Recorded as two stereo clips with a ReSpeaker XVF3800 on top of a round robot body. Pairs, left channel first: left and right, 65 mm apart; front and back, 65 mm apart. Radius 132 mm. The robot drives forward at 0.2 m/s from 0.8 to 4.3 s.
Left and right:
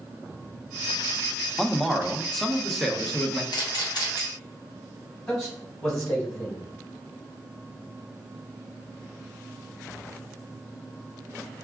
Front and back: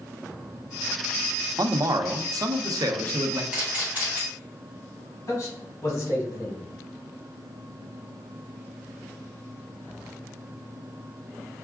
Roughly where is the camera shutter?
Left.